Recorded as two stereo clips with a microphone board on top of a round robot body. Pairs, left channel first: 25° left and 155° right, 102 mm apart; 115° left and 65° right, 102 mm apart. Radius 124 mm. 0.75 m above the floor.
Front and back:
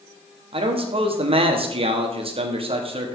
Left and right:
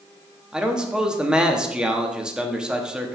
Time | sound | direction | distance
0.5 | a man speaking | 150° right | 1.7 m